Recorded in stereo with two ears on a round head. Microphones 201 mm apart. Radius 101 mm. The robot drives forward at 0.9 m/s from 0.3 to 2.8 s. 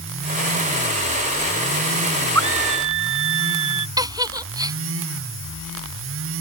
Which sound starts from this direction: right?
A scream, at 2.4 s.